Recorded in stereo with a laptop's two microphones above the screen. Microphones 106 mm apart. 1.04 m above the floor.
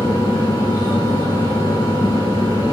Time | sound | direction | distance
0.0 | a fan | 30° right (ahead or behind) | 1.2 m